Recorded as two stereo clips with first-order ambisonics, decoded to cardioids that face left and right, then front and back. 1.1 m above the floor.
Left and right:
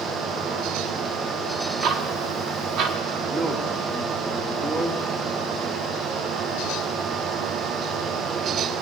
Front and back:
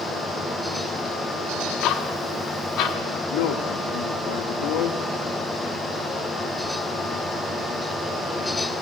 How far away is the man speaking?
About 1.5 m.